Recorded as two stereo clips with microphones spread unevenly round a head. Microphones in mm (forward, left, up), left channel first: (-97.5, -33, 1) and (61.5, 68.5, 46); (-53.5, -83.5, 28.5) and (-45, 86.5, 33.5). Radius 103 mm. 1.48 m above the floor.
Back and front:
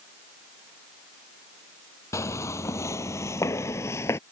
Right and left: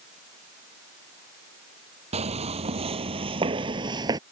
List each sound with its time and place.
2.1 s footsteps: 130° left; by 4.2 s 125° left